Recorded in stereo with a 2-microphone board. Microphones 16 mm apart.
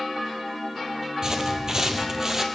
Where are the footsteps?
35° right (ahead or behind), 1.7 m; by 2.5 s 30° right (ahead or behind), 1.8 m.